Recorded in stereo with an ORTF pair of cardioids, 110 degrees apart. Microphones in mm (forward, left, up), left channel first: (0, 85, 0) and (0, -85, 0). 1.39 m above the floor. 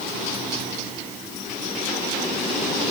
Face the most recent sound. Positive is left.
No sound to turn to.